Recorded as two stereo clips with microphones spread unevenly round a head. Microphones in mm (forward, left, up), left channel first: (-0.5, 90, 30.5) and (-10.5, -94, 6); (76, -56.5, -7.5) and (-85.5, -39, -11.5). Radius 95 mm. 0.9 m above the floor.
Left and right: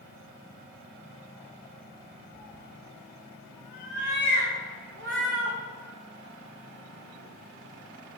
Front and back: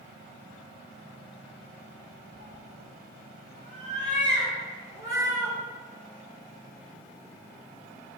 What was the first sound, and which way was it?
A cat meowing, 140° right.